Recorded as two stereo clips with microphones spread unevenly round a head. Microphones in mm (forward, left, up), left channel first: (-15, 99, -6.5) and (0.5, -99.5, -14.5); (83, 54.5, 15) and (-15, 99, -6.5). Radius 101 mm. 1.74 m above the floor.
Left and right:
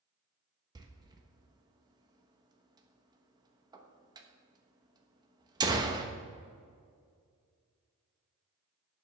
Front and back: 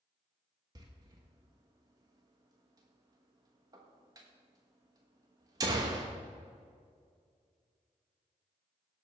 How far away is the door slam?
About 1.1 m.